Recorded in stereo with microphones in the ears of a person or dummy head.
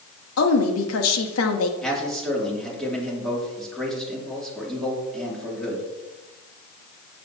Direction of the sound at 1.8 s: Centre (ahead or behind).